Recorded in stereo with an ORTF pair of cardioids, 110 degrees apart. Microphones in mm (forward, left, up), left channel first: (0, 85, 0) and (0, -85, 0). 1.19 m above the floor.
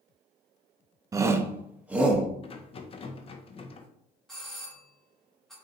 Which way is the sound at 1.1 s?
20° right.